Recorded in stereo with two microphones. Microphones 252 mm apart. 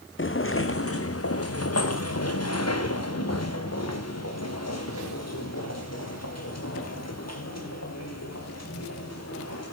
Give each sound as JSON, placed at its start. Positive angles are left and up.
{"t": 0.2, "sound": "footsteps", "side_deg": 50, "distance_m": 1.2}